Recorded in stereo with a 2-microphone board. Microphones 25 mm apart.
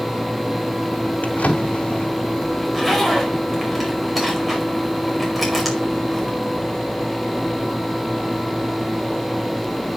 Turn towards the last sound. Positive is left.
turn(degrees=-10)  # may be behind; listen again after turning